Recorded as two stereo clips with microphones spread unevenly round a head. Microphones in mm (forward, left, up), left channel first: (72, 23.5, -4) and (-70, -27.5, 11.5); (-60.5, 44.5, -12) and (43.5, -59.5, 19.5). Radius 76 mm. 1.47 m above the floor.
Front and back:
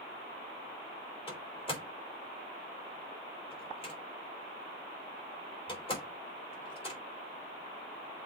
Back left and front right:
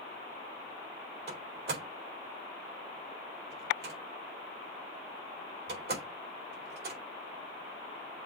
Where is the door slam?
35° right, 4 m.